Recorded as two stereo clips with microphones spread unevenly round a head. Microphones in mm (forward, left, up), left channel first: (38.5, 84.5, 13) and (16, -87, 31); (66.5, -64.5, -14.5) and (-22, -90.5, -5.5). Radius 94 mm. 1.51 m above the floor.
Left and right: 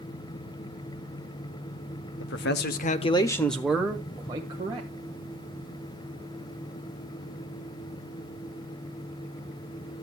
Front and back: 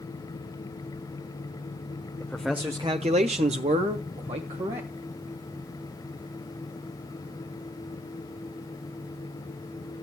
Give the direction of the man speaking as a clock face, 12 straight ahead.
9 o'clock.